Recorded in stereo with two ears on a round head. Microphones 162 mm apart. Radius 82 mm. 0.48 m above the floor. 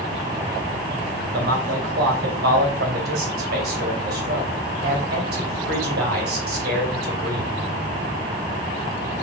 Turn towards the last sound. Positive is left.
turn(degrees=-60)  # may be behind; listen again after turning